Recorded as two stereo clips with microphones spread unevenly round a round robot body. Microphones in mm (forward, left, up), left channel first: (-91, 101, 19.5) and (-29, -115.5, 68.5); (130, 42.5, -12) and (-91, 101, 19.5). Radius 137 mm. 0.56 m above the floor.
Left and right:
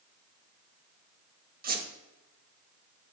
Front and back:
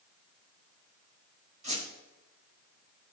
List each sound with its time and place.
1.6 s a squeak: 125° right, 1.4 m